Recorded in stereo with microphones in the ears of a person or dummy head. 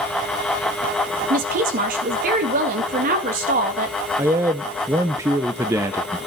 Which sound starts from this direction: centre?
A man speaking, at 4.2 s.